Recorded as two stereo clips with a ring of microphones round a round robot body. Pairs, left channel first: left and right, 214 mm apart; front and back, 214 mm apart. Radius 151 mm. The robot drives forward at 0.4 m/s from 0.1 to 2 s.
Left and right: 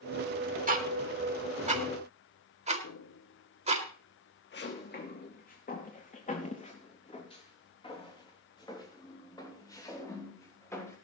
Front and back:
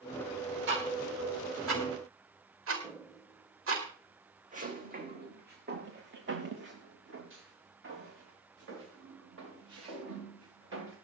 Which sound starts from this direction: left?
Footsteps, at 2.8 s.